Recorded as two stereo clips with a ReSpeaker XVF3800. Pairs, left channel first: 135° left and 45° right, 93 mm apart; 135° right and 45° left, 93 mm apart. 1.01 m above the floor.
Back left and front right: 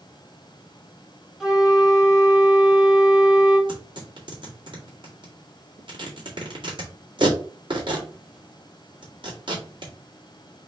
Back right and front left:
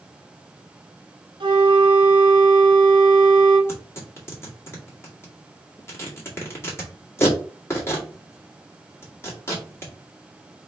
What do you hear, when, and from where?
1.4 s a flute: 40° left, 1.3 m
3.7 s tearing paper: 75° right, 1.9 m